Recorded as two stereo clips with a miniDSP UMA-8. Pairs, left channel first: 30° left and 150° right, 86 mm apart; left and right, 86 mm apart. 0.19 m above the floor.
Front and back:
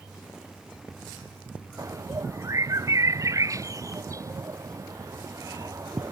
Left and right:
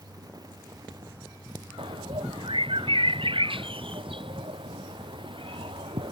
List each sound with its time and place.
1.8 s a bird: 100° right